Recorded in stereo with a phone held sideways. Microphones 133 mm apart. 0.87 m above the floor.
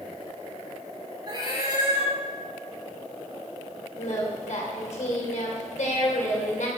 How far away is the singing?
About 2.5 m.